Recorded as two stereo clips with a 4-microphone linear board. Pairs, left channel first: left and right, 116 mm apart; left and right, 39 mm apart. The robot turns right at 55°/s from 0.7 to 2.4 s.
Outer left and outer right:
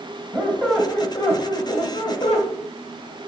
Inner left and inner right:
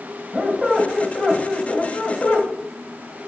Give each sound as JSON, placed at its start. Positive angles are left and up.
{"t": 0.3, "sound": "a squeak", "azimuth_deg": 10, "distance_m": 1.1}